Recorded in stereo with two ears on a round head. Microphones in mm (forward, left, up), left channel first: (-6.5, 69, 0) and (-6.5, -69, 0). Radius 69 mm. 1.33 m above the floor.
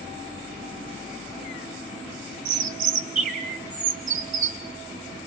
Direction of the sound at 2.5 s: 55° right (ahead or behind).